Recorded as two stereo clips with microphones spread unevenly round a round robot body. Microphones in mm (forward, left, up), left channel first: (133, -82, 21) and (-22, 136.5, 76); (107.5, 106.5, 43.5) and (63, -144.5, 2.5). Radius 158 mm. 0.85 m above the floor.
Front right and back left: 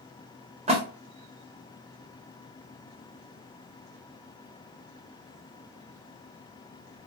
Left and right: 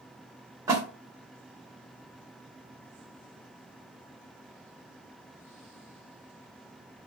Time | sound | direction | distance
0.7 | a splash | 165° right | 0.8 m